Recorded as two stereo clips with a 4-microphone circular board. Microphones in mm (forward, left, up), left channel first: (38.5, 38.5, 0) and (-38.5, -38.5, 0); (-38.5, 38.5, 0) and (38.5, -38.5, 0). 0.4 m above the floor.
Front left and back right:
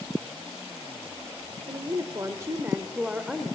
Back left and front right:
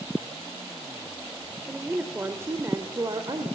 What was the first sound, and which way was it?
A woman speaking, 120° right.